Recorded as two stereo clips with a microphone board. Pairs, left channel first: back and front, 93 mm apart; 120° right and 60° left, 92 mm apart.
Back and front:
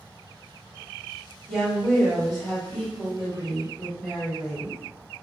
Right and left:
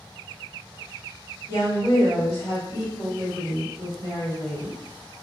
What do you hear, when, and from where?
1.5 s a woman speaking: 90° right, 1.7 m